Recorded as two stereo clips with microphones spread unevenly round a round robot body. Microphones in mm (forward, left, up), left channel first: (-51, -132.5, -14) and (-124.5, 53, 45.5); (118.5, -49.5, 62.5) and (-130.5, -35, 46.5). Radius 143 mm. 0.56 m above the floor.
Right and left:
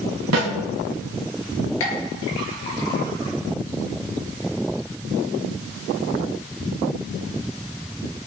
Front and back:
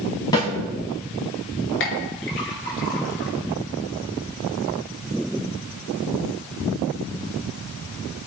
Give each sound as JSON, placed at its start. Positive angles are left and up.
{"t": 0.3, "sound": "a snare drum", "azimuth_deg": 70, "distance_m": 4.0}
{"t": 1.8, "sound": "a clink", "azimuth_deg": -45, "distance_m": 5.0}